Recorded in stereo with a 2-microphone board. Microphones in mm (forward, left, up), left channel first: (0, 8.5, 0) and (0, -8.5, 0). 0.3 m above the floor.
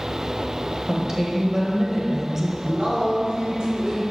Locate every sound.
0.9 s a woman speaking: 25° right (ahead or behind), 1.0 m
2.6 s a man speaking: 60° right (ahead or behind), 1.9 m